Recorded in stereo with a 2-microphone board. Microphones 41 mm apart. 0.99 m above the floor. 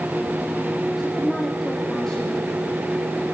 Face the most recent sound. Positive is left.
turn(degrees=25)  # may be behind; listen again after turning